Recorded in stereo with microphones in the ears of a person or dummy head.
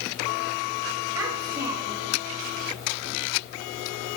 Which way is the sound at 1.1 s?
10° right (ahead or behind).